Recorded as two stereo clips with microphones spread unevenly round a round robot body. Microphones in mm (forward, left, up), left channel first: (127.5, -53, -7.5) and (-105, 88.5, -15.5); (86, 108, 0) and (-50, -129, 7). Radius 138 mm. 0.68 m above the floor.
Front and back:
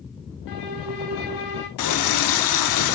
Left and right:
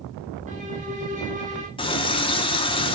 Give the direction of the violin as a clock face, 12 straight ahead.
2 o'clock.